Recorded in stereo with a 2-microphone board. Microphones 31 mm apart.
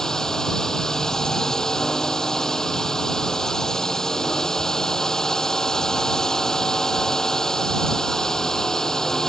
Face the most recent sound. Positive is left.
turn(degrees=20)  # may be behind; listen again after turning